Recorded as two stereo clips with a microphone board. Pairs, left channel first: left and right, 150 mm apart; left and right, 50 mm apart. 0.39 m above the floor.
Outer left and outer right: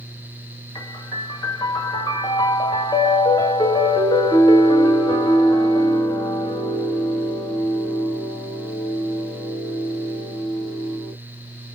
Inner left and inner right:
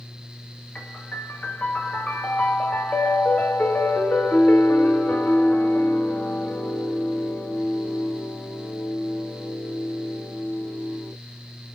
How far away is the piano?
About 1.0 m.